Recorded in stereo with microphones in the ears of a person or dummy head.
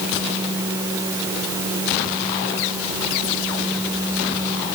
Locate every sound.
Only background noise.